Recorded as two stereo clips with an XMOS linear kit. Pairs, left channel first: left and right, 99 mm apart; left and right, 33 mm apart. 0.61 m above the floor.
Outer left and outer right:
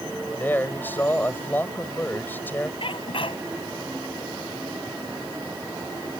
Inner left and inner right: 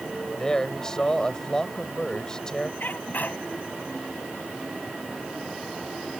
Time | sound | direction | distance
0.4 | a man speaking | 20° left (ahead or behind) | ?
2.8 | a sneeze | 65° left (ahead or behind) | ?